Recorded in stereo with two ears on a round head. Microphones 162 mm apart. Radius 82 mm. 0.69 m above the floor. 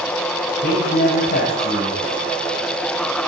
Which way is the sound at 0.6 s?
55° left (ahead or behind).